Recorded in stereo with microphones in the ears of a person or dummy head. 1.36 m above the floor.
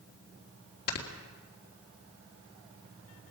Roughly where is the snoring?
Left.